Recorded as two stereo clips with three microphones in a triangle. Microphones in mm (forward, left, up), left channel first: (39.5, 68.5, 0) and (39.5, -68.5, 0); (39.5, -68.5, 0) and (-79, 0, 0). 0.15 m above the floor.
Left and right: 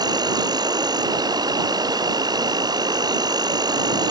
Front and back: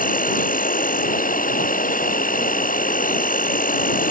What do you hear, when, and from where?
0.0 s an insect: 30° right